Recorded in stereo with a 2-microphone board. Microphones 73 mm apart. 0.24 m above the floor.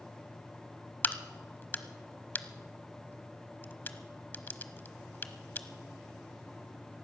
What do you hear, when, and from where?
1.0 s a crack: 30° left (ahead or behind), 0.9 m